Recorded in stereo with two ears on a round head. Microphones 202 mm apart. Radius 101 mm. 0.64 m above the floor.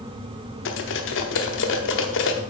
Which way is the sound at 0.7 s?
65° left (ahead or behind).